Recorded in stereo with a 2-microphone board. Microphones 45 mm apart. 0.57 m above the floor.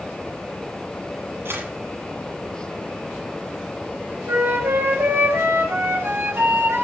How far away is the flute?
About 9.5 m.